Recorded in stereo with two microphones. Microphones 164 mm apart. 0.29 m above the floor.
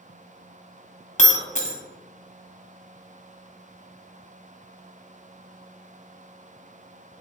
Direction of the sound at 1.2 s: 45° left (ahead or behind).